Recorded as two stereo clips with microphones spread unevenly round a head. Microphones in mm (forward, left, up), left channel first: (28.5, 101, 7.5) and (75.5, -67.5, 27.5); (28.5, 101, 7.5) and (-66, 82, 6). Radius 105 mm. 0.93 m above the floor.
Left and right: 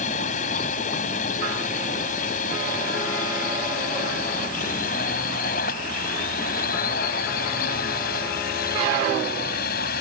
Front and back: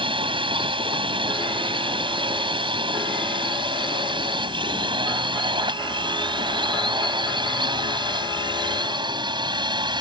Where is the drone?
165° left; by 10.0 s 155° left.